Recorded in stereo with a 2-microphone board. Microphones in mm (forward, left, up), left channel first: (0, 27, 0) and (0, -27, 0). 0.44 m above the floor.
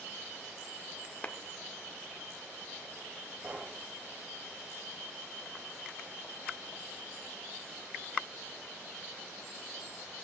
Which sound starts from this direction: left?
A clap, at 1.2 s.